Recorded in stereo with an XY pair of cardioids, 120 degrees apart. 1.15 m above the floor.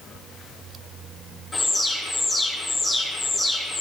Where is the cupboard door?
No cupboard door in this recording.